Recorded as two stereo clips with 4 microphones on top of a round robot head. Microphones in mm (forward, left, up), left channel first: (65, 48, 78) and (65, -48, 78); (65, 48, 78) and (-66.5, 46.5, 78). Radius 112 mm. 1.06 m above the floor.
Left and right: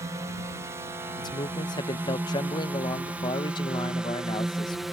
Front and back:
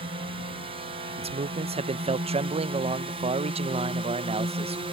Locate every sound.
0.0 s a drone: 145° right; by 4.9 s straight behind
1.2 s a man speaking: 135° left